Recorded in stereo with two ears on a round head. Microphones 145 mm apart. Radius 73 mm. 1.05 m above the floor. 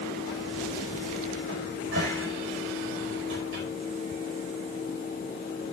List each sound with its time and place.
1.5 s a cupboard door: 75° right (ahead or behind), 4.5 m